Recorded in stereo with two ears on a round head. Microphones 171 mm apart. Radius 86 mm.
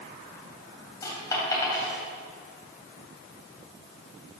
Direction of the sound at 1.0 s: 20° left (ahead or behind).